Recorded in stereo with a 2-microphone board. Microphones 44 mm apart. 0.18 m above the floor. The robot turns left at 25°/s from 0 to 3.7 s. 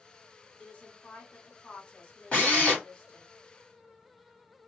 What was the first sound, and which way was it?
A woman speaking, 90° left.